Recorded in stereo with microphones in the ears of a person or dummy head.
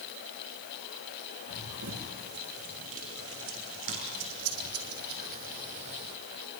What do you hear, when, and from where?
1.5 s running footsteps: 80° right, 8.5 m; by 6.2 s 30° right (ahead or behind), 3.5 m